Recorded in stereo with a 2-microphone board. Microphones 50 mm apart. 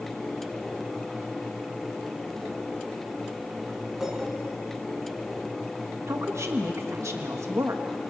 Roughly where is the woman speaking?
Right.